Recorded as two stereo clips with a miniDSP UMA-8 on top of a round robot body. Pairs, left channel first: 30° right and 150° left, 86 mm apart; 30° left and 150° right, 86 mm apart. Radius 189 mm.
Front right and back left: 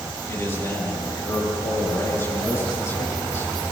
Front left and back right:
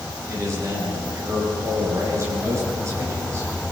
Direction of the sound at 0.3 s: 90° right.